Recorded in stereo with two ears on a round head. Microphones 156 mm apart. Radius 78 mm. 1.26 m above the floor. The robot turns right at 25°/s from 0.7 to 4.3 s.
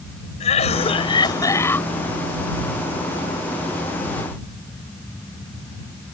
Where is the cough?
40° left (ahead or behind); by 1.9 s 10° left (ahead or behind).